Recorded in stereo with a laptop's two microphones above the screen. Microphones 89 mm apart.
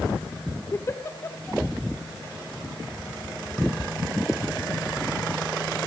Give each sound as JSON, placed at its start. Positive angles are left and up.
{"t": 0.7, "sound": "a giggle", "side_deg": 30, "distance_m": 1.5}